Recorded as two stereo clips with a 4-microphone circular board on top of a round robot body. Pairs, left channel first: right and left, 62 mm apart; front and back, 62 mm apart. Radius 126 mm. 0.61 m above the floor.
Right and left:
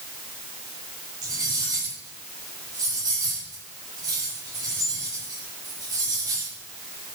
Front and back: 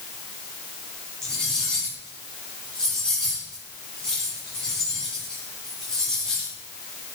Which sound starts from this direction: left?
Cutlery clinking, at 1.2 s.